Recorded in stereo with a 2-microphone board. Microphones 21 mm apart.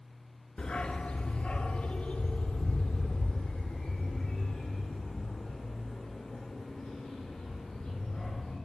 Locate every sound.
0.6 s a dog barking: 45° left (ahead or behind), 0.6 m; by 8.6 s 70° left (ahead or behind), 4.5 m